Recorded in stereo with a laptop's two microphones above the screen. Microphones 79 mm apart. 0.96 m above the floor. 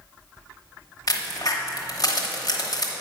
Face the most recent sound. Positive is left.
turn(degrees=50)  # may be behind; listen again after turning